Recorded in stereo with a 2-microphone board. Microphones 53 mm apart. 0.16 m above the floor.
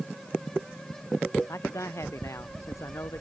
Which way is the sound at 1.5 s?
75° left (ahead or behind).